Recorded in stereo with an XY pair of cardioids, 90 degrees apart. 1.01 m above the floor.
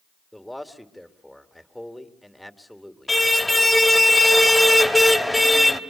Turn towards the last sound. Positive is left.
turn(degrees=15)